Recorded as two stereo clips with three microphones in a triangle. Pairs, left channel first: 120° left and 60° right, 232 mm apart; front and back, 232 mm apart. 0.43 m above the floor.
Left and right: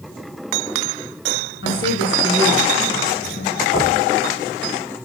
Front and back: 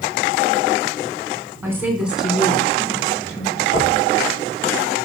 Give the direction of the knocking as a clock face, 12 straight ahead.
10 o'clock.